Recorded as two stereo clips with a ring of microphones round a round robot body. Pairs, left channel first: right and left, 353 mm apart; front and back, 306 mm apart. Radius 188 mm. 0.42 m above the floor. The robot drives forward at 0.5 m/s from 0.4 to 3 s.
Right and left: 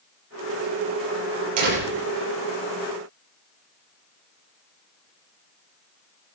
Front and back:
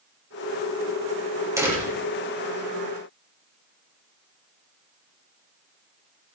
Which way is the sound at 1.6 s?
100° left.